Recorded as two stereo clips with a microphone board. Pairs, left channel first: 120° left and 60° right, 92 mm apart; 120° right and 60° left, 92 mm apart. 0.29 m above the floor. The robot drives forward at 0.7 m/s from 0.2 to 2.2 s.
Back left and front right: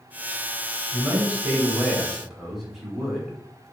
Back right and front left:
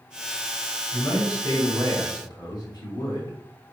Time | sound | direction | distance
0.9 | a man speaking | 105° right | 1.0 m